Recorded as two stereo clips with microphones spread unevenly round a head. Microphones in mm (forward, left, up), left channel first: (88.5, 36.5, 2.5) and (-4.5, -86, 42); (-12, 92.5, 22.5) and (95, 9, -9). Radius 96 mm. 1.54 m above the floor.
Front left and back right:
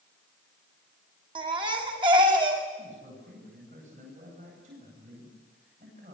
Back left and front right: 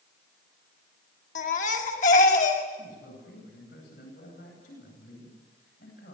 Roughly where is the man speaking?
Behind.